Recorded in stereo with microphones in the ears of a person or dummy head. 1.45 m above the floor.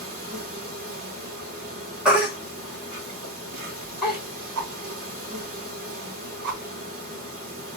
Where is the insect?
45° right (ahead or behind), 1.2 m.